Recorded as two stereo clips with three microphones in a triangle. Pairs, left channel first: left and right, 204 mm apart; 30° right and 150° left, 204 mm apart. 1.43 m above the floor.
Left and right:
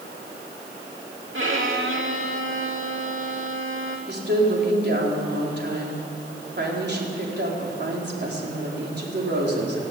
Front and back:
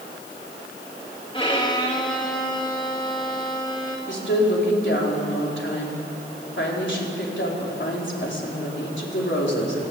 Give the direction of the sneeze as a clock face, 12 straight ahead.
I don't hear a sneeze.